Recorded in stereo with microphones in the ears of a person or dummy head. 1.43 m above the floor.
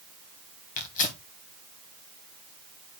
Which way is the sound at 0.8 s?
45° left (ahead or behind).